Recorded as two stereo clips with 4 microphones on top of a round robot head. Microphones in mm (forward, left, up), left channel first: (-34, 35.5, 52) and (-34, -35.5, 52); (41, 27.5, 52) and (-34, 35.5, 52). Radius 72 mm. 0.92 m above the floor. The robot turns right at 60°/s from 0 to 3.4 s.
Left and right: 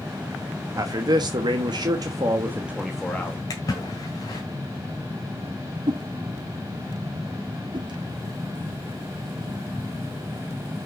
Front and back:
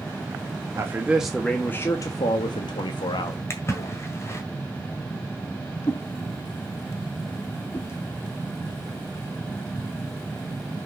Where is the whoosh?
70° right, 1.1 m.